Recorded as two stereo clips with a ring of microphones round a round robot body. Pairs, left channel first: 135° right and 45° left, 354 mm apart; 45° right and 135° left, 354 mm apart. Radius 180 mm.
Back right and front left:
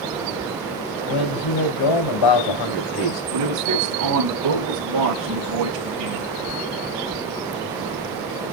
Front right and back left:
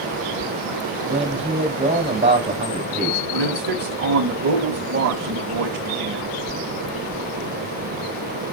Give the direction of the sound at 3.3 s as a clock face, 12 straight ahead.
9 o'clock.